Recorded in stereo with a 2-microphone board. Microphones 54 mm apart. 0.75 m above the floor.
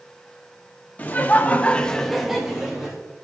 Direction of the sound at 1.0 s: 30° left (ahead or behind).